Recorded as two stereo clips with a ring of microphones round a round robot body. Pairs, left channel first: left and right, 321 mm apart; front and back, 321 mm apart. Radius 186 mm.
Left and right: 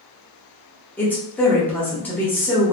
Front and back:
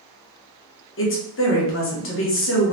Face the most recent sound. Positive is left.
turn(degrees=10)